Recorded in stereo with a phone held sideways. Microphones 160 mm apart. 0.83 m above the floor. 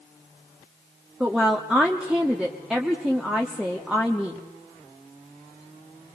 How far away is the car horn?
No car horn in this recording.